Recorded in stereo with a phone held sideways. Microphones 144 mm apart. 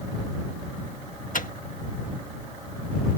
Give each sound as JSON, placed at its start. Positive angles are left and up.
{"t": 1.3, "sound": "a microwave", "side_deg": 65}